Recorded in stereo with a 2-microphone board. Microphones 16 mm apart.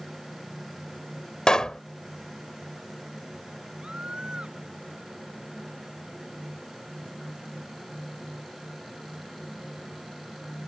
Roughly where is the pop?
Left.